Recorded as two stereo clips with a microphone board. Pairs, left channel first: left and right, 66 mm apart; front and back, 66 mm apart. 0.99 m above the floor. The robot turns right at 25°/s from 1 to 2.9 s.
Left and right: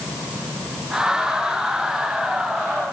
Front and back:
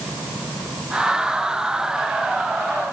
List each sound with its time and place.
Only background noise.